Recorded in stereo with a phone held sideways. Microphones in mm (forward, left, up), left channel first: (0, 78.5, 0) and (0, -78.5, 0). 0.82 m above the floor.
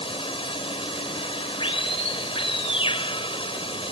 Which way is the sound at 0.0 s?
35° left (ahead or behind).